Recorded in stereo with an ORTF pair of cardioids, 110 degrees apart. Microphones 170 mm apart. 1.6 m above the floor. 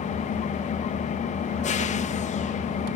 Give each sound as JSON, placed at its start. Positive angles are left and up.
{"t": 0.0, "sound": "an engine running", "azimuth_deg": 40, "distance_m": 1.0}